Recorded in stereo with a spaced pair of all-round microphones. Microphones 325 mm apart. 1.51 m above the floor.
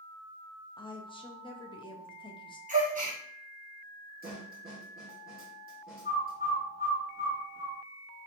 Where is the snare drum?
30° right (ahead or behind), 1.8 m.